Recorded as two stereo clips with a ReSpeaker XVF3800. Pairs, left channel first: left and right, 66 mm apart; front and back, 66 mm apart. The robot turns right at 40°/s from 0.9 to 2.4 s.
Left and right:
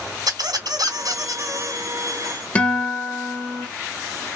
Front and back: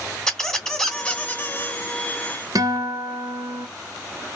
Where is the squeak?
80° right, 1.2 m; by 1.8 s 45° right, 1.2 m.